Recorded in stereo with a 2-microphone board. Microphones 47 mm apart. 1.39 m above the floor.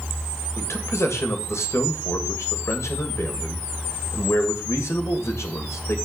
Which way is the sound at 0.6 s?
75° left (ahead or behind).